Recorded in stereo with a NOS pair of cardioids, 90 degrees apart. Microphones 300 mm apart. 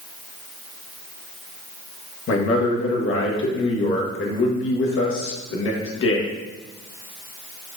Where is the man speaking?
45° left, 1.3 m.